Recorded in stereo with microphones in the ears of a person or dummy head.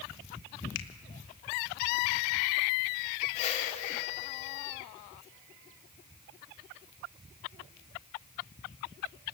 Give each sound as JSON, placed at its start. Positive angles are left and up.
{"t": 0.8, "sound": "a finger snap", "side_deg": 70, "distance_m": 1.5}
{"t": 3.4, "sound": "a whoosh", "side_deg": 40, "distance_m": 2.5}